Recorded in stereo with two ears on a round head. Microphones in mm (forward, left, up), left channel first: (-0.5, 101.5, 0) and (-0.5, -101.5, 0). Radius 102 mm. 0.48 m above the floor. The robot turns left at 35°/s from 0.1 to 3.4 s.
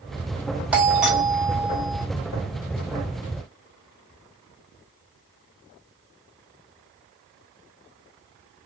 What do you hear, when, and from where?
0.7 s a doorbell: 5° right (ahead or behind), 1.1 m; by 2.0 s 10° left (ahead or behind), 1.1 m